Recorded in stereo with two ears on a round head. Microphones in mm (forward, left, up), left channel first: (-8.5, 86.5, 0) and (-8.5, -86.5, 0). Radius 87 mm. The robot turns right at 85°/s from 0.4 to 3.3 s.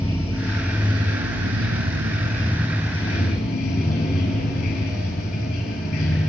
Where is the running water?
165° left, 6.5 m; by 6.3 s 50° left, 6.5 m.